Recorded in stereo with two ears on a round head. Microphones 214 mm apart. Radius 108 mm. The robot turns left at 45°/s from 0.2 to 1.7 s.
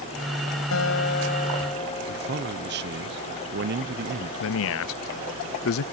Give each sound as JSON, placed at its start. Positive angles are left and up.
{"t": 0.7, "sound": "a guitar", "azimuth_deg": 65}
{"t": 2.1, "sound": "a man speaking", "side_deg": -45}
{"t": 4.4, "sound": "a man speaking", "side_deg": 60}